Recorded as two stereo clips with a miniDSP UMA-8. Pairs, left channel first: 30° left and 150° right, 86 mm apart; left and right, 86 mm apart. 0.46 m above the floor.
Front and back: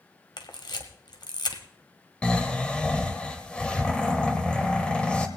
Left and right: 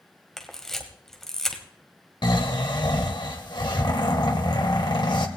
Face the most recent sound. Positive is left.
turn(degrees=105)